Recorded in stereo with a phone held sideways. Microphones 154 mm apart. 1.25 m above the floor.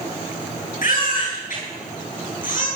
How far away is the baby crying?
About 9.5 m.